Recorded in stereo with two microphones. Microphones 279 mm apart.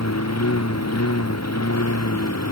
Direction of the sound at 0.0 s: 65° left (ahead or behind).